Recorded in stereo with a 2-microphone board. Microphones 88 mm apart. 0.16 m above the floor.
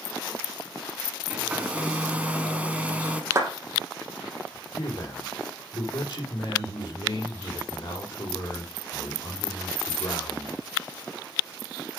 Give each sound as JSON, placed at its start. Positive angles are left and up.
{"t": 1.3, "sound": "a hair dryer", "side_deg": -15, "distance_m": 1.6}
{"t": 3.3, "sound": "a clap", "side_deg": -30, "distance_m": 4.0}
{"t": 4.8, "sound": "a man speaking", "side_deg": 65, "distance_m": 4.5}